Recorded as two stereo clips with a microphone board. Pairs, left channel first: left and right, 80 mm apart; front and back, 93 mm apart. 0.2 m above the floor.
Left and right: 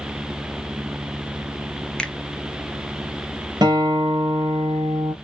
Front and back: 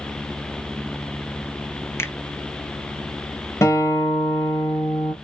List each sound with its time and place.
2.0 s a finger snap: 20° left, 0.9 m
3.6 s a guitar: 55° right, 3 m